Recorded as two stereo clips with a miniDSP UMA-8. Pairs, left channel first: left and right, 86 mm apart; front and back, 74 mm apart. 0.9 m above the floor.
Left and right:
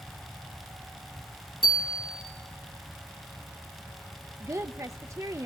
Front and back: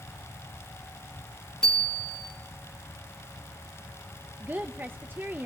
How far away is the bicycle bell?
About 4.5 m.